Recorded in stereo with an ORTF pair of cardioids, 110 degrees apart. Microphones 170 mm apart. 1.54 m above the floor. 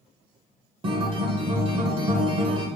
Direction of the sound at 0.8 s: 30° right.